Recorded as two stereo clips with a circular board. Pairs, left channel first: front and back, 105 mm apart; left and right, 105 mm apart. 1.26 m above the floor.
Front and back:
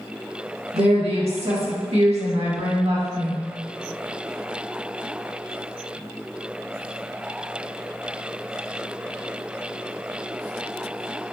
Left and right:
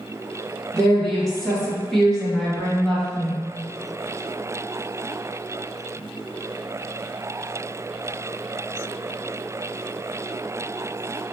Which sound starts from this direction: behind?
A woman speaking, at 0.7 s.